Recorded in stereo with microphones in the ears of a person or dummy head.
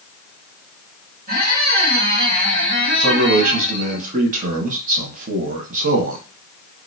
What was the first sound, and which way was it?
A squeak, 45° right (ahead or behind).